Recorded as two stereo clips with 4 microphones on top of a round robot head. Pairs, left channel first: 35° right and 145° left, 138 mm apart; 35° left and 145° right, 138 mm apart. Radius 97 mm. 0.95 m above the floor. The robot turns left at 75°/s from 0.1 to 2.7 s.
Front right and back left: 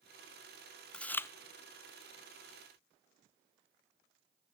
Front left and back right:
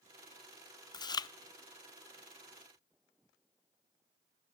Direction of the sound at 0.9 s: 45° left.